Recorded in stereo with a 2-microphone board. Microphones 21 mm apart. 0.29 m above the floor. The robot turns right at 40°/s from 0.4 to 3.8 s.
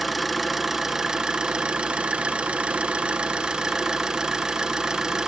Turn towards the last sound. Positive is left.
turn(degrees=-35)